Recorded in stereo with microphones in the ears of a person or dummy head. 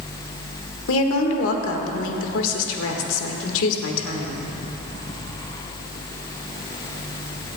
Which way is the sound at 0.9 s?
75° left (ahead or behind).